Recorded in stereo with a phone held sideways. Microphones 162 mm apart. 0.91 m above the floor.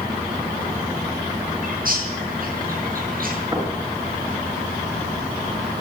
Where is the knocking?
20° right (ahead or behind), 8 m.